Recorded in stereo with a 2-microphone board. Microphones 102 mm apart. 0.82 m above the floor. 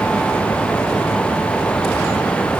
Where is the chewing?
No chewing in this recording.